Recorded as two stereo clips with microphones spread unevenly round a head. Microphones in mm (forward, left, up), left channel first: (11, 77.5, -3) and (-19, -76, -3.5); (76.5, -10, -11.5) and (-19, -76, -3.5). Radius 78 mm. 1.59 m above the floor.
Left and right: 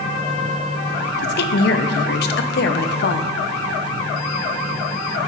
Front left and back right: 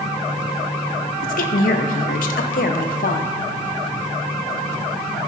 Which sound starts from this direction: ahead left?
A woman speaking, at 1.2 s.